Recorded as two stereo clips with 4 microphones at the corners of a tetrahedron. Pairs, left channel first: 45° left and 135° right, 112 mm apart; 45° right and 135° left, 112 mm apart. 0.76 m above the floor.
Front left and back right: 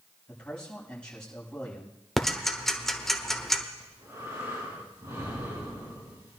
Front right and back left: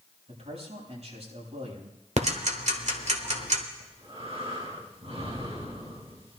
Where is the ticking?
130° left, 1.3 m.